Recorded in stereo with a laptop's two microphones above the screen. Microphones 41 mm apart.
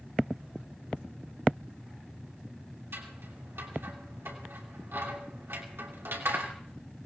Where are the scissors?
75° right (ahead or behind), 2.5 m.